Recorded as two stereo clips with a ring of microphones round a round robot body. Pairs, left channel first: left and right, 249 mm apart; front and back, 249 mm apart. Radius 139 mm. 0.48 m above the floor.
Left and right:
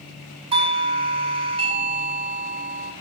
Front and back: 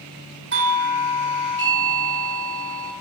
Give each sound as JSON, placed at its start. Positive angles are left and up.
{"t": 0.5, "sound": "a doorbell", "azimuth_deg": -150, "distance_m": 2.0}